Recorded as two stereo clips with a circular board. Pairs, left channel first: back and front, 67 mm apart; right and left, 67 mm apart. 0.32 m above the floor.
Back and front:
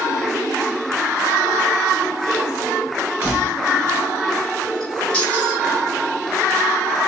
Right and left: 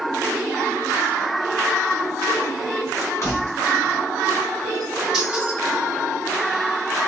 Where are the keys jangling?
60° right, 1.6 m; by 5.6 s 140° left, 1.1 m.